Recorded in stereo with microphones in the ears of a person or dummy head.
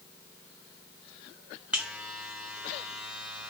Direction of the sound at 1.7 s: 5° right (ahead or behind).